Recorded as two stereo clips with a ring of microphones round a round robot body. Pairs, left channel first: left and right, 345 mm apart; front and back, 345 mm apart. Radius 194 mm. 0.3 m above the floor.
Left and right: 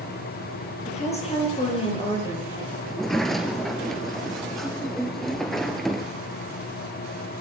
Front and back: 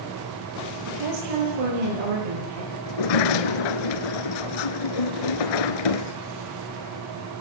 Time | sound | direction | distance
0.9 | a woman speaking | 160° left | 10 m
2.9 | a sliding door | straight ahead | 1.1 m